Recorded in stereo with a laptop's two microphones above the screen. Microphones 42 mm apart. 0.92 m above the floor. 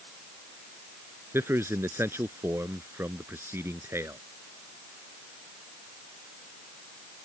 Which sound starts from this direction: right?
A man speaking, at 1.3 s.